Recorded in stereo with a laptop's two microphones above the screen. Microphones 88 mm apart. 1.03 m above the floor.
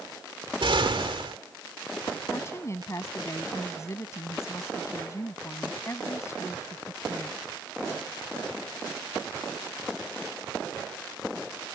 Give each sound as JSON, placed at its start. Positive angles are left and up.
{"t": 0.6, "sound": "an explosion", "side_deg": -75}
{"t": 2.3, "sound": "a woman speaking", "side_deg": 35}